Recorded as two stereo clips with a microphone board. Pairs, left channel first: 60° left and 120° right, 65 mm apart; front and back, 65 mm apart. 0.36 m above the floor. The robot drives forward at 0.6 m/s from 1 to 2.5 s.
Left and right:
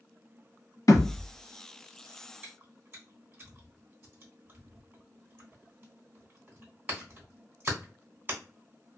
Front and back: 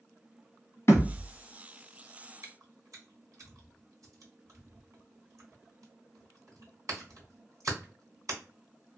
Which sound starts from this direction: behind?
Chewing, at 2.4 s.